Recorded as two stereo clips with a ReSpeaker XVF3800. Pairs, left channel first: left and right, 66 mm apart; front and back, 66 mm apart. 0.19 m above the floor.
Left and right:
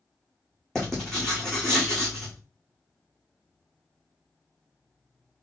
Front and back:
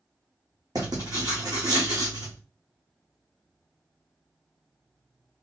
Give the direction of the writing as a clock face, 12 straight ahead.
6 o'clock.